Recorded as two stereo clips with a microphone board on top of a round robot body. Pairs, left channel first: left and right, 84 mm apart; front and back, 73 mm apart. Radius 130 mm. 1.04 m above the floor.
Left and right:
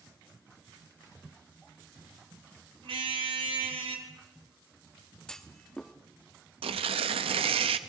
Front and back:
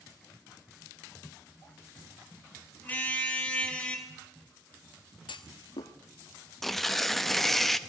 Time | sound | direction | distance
2.8 | a car horn | 70° right | 2.5 m
5.3 | a clunk | 10° left | 1.2 m
6.6 | tearing paper | 85° right | 0.7 m